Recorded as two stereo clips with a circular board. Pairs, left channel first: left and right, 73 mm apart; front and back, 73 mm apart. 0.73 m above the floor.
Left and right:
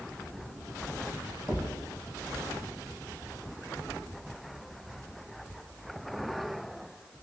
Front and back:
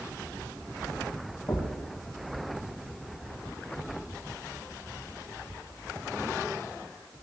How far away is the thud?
About 4.5 m.